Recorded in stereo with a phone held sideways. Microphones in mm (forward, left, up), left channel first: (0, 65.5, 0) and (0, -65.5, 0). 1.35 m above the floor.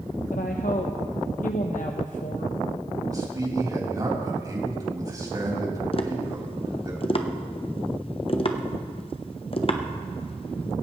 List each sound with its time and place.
0.3 s a woman speaking: 70° left (ahead or behind), 0.9 m
3.1 s a man speaking: 30° right (ahead or behind), 3.5 m
5.9 s tapping: 40° left (ahead or behind), 0.9 m